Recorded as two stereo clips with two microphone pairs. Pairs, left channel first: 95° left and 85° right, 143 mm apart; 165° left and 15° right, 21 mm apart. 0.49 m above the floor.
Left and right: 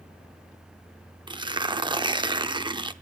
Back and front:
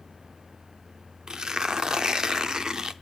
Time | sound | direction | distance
1.3 | tearing paper | 50° right | 0.6 m